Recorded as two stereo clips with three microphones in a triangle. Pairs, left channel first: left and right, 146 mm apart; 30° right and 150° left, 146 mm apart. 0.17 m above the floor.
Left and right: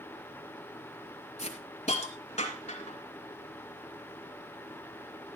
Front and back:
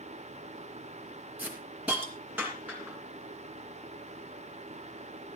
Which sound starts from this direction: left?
A hiss, at 1.4 s.